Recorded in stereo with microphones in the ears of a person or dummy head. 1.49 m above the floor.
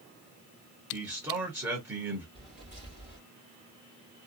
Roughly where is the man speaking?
Centre.